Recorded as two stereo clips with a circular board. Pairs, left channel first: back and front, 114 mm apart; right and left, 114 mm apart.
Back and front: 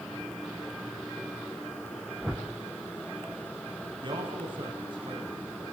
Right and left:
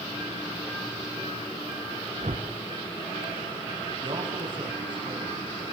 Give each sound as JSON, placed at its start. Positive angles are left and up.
{"t": 2.2, "sound": "a whoosh", "azimuth_deg": 85, "distance_m": 4.5}
{"t": 4.0, "sound": "a man speaking", "azimuth_deg": 45, "distance_m": 9.5}